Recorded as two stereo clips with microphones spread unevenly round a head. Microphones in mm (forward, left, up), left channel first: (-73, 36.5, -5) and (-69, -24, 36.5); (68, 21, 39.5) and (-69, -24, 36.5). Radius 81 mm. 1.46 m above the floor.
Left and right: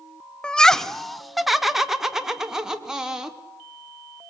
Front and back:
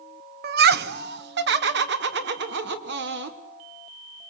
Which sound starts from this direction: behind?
Laughter, at 0.4 s.